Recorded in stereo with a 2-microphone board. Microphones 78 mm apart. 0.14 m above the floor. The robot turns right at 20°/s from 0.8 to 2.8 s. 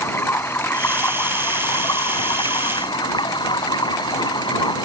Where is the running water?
35° left; by 4.9 s 75° left.